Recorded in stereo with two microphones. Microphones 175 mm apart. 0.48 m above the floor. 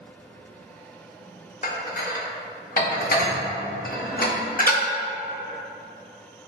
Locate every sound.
1.6 s dishes clattering: 50° left (ahead or behind), 0.5 m